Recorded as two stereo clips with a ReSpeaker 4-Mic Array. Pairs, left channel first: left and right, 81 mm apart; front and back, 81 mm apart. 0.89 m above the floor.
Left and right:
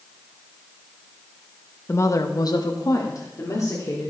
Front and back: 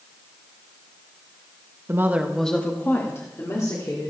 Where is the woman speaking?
140° left, 1.1 m; by 4.1 s 45° left, 3.5 m.